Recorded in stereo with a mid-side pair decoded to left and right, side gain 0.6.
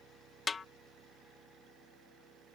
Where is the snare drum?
25° left.